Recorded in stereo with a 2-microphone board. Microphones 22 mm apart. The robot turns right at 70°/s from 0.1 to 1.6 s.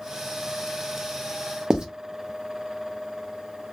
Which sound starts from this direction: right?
Writing, at 1.7 s.